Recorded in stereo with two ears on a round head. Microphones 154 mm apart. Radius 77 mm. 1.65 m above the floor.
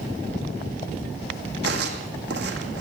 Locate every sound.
1.6 s footsteps: 70° right (ahead or behind), 5 m